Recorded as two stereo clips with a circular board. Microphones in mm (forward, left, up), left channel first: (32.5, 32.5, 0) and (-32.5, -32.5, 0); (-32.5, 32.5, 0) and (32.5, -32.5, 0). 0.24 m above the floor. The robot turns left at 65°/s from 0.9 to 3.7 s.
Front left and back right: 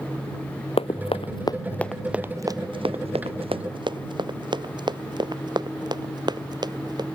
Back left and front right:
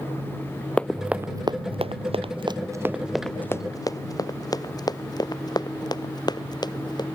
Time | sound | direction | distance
0.8 | running footsteps | 55° left | ?